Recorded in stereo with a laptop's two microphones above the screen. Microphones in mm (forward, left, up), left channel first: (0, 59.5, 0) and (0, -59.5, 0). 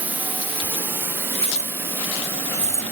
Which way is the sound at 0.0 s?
15° right (ahead or behind).